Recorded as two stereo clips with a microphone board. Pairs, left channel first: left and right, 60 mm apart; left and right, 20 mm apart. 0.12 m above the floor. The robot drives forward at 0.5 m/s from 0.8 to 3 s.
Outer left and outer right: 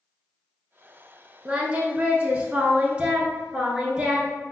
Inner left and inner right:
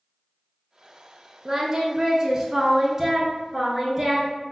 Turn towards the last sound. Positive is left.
turn(degrees=-15)  # may be behind; listen again after turning